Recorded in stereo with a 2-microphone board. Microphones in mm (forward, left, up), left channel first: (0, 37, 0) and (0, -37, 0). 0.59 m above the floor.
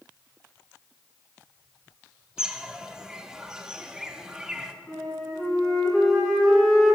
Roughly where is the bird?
Centre.